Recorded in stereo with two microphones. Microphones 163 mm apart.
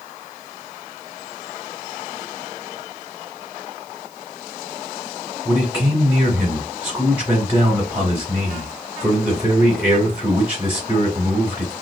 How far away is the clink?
I don't hear a clink.